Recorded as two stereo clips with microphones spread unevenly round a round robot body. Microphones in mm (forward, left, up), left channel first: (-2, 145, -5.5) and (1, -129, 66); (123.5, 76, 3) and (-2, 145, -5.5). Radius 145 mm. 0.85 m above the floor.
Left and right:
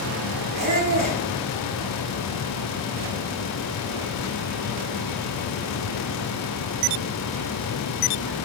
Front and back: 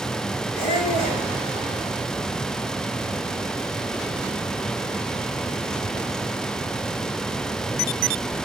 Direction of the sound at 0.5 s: 20° right.